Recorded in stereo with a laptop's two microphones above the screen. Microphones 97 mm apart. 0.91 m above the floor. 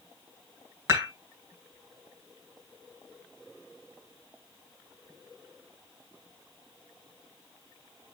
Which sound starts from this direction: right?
Dishes clattering, at 0.9 s.